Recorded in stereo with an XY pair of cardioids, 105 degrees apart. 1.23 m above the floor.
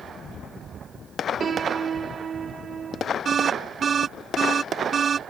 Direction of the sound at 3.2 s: 45° right.